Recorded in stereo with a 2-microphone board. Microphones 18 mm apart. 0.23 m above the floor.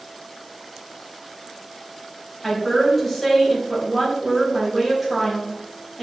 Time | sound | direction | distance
2.4 | a woman speaking | 10° left (ahead or behind) | 1.7 m